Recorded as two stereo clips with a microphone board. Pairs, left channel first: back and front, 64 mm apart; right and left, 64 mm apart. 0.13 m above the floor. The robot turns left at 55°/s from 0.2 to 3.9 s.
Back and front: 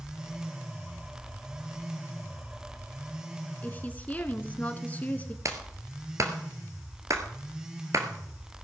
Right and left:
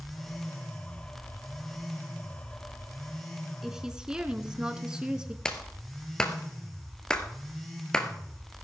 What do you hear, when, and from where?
3.6 s a woman speaking: 165° left, 1.1 m; by 5.3 s 150° left, 1.1 m
5.5 s a clap: 15° right, 1.9 m